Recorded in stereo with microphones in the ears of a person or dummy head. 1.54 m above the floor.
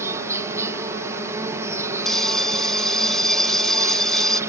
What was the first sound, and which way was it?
An insect, 15° right (ahead or behind).